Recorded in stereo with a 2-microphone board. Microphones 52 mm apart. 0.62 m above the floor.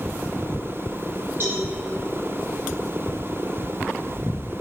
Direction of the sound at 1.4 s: 45° right (ahead or behind).